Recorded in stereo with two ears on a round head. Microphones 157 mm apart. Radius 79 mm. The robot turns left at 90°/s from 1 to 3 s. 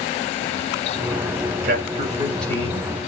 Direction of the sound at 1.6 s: 115° right.